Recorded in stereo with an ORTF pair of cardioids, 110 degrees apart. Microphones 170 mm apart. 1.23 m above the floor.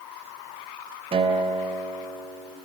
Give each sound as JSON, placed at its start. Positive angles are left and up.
{"t": 1.1, "sound": "a guitar", "azimuth_deg": -35, "distance_m": 3.0}